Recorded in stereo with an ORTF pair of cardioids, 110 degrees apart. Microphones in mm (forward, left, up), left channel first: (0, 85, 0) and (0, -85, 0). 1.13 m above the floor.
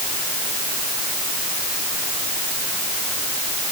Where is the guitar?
No guitar in this recording.